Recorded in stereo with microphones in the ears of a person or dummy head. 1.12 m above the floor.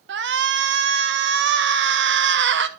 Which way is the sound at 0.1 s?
55° right (ahead or behind).